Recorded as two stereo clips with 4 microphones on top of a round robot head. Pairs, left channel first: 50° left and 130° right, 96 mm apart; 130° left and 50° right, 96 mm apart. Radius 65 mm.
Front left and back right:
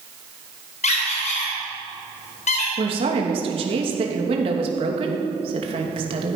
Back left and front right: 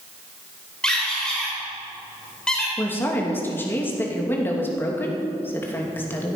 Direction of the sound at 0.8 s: 50° left.